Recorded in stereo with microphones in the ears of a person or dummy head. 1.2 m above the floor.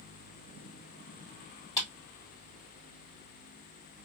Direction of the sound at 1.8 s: 15° left (ahead or behind).